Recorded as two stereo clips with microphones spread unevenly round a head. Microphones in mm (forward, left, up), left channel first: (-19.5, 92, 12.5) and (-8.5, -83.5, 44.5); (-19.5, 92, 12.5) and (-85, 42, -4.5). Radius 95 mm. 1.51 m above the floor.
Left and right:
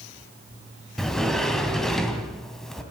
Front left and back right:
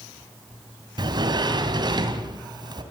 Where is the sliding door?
175° right, 3 m.